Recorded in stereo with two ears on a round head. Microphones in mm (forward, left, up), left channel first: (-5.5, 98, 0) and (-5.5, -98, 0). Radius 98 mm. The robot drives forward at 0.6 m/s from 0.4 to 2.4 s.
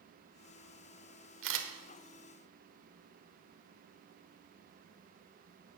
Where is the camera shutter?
65° right (ahead or behind), 1.5 m; by 1.7 s 60° right (ahead or behind), 1.5 m.